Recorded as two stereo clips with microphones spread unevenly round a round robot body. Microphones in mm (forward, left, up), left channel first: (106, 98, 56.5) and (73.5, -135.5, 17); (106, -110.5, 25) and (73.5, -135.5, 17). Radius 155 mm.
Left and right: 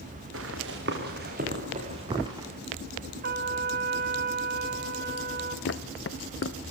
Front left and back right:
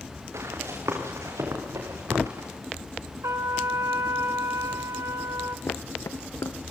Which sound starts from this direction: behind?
A trumpet, at 3.2 s.